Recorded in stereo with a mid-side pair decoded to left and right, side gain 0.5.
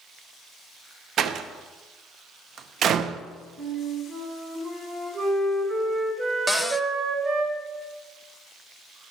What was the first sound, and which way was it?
A door slam, 55° right.